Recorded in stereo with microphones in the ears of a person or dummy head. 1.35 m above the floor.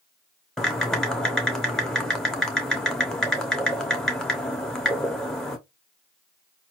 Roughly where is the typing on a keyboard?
Centre.